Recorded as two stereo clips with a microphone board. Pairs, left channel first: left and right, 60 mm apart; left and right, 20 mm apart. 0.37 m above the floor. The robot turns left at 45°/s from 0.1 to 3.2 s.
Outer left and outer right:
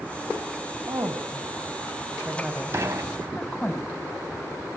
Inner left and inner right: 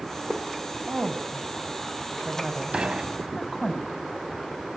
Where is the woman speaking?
60° right (ahead or behind), 1.6 m; by 3.7 s 15° left (ahead or behind), 1.6 m.